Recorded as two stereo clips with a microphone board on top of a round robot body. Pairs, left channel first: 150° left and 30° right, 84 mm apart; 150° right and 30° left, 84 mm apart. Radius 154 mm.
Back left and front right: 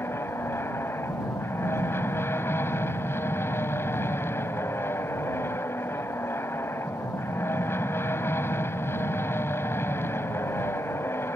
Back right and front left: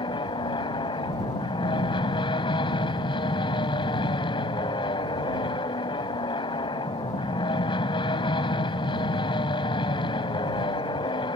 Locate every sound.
0.0 s an aircraft: 150° right